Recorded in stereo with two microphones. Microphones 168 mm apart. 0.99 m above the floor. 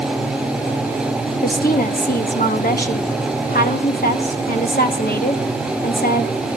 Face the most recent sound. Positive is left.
turn(degrees=60)  # may be behind; listen again after turning